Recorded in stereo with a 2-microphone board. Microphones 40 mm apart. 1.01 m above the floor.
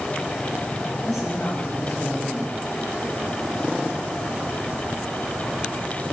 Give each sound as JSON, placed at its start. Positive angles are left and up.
{"t": 1.1, "sound": "a woman speaking", "side_deg": 5, "distance_m": 7.0}